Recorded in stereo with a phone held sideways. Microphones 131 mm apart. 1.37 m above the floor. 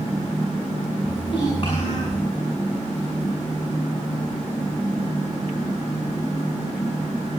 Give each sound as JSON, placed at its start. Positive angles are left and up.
{"t": 1.0, "sound": "a child speaking", "side_deg": 35, "distance_m": 8.0}